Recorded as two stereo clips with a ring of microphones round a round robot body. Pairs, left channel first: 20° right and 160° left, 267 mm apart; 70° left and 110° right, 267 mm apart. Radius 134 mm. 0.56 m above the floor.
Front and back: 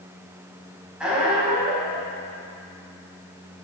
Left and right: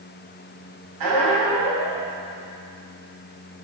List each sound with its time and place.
1.0 s a squeak: 115° right, 2.5 m